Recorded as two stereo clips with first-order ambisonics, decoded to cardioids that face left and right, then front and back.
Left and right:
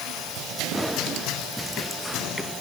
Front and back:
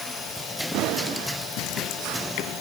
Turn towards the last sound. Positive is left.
No sound to turn to.